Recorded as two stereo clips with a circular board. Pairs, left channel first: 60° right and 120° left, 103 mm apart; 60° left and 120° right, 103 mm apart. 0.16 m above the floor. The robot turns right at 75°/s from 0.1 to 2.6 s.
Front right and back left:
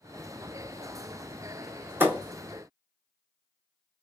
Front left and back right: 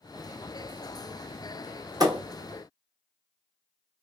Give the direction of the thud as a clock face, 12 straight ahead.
6 o'clock.